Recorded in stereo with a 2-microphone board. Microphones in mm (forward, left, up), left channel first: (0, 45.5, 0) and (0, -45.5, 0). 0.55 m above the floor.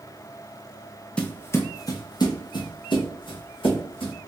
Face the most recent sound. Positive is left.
turn(degrees=65)  # may be behind; listen again after turning